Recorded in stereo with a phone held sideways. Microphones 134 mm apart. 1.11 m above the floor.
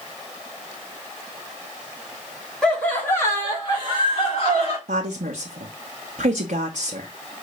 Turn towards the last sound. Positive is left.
turn(degrees=-80)